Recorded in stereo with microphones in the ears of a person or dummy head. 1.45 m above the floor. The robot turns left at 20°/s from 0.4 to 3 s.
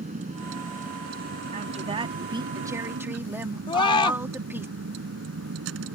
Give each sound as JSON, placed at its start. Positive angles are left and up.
{"t": 0.0, "sound": "a vehicle", "azimuth_deg": -35}
{"t": 1.5, "sound": "a woman speaking", "side_deg": -50}
{"t": 3.7, "sound": "a scream", "side_deg": 20}